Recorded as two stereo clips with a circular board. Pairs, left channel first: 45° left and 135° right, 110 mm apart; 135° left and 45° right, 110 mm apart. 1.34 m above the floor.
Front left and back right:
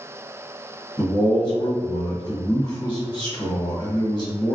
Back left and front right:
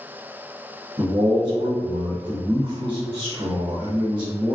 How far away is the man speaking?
About 1.4 m.